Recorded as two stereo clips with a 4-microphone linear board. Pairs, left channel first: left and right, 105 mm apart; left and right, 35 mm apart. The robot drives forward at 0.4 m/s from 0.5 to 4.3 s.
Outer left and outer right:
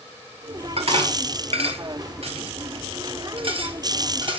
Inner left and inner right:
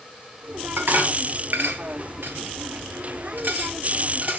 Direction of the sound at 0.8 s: 70° right (ahead or behind).